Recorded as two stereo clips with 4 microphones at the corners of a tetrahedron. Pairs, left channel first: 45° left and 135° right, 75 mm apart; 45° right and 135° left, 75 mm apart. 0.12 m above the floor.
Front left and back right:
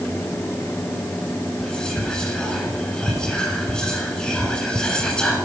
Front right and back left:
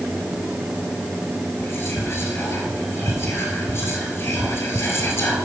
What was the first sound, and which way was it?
Whispering, 30° right.